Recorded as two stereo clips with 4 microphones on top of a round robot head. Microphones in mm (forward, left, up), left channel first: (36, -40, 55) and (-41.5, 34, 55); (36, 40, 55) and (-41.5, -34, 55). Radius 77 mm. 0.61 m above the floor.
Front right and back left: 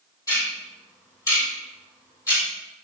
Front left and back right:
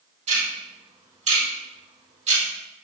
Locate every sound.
0.3 s ticking: 105° right, 3.5 m